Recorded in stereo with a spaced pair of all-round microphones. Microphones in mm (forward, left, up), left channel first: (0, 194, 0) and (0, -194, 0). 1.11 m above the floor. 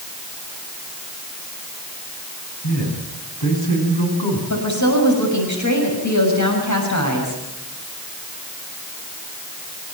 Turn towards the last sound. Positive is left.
turn(degrees=45)  # may be behind; listen again after turning